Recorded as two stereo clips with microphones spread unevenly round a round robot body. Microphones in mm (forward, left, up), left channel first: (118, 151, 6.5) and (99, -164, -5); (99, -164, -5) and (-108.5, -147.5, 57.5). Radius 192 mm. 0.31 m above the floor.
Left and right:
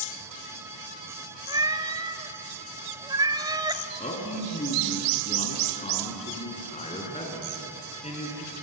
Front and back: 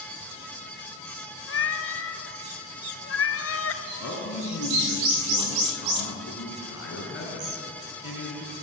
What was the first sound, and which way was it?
A cat meowing, 15° right.